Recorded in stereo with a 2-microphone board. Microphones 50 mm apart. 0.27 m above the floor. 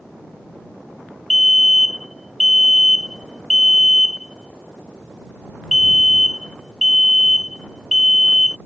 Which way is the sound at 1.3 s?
Centre (ahead or behind).